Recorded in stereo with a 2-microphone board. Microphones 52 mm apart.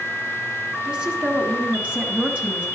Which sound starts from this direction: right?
A woman speaking, at 0.8 s.